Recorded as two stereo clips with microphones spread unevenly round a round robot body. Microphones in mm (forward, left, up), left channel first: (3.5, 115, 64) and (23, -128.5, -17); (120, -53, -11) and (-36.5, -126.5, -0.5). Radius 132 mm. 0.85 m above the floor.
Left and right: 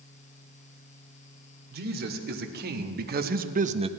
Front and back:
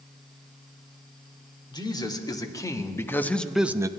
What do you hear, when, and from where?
1.7 s a man speaking: 40° right, 2.5 m; by 3.9 s 90° right, 0.6 m